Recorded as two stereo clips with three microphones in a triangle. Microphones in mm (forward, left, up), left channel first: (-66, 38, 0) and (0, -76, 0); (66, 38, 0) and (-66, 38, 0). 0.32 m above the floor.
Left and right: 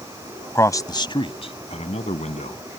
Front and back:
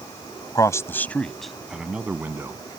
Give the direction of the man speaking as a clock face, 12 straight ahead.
10 o'clock.